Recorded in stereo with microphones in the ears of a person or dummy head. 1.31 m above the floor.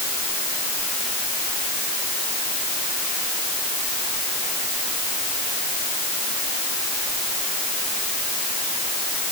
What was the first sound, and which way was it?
Only background noise.